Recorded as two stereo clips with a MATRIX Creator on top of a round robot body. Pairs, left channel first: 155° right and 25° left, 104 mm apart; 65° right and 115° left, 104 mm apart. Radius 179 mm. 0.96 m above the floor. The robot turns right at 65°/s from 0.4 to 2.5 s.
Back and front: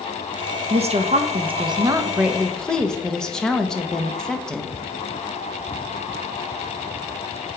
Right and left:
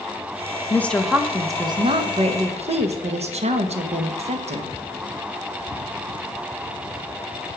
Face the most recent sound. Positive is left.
turn(degrees=120)